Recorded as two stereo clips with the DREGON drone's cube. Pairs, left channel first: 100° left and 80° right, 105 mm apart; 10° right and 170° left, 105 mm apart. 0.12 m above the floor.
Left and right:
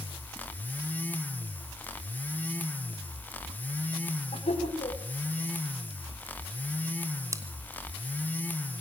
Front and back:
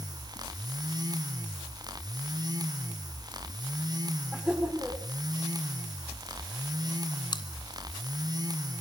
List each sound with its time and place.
4.3 s laughter: 85° left, 8 m
7.3 s chewing: 35° right, 1.9 m